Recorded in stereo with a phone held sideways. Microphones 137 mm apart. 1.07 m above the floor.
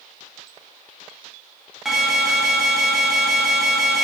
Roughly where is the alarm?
Centre.